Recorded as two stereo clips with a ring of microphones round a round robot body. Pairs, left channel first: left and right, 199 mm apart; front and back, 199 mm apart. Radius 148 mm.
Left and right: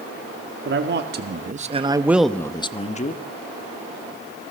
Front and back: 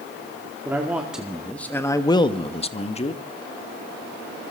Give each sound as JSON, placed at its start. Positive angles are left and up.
{"t": 0.7, "sound": "a man speaking", "azimuth_deg": -100, "distance_m": 2.0}